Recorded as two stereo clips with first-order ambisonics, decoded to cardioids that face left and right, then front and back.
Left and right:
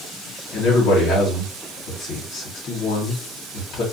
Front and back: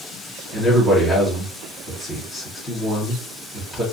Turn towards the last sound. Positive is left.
turn(degrees=90)